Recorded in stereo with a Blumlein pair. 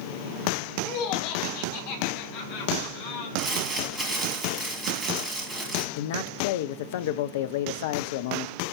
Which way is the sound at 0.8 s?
45° left.